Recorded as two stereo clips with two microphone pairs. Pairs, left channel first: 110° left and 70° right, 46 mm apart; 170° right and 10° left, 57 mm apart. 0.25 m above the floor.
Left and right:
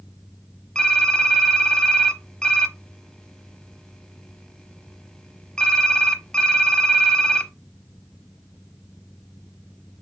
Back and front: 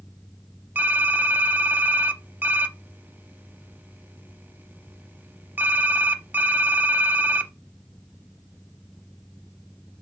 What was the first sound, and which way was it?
Typing on a keyboard, 40° left.